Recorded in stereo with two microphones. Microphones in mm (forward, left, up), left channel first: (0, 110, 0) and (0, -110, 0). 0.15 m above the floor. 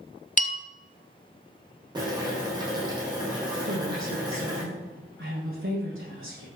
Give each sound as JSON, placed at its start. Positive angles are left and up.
{"t": 0.4, "sound": "a bell", "side_deg": 35, "distance_m": 1.1}
{"t": 1.9, "sound": "boiling", "side_deg": -20, "distance_m": 7.0}
{"t": 3.6, "sound": "a woman speaking", "side_deg": -65, "distance_m": 8.0}